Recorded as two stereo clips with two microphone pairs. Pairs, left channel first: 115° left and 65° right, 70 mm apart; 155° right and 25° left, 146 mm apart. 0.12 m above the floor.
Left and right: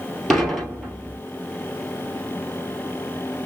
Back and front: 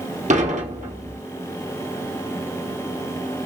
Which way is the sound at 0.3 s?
30° left.